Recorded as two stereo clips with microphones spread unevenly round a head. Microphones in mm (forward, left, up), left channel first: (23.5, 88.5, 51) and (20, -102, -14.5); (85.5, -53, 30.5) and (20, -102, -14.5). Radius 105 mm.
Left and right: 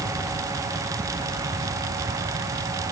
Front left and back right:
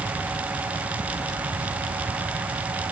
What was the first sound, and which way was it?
Only background noise.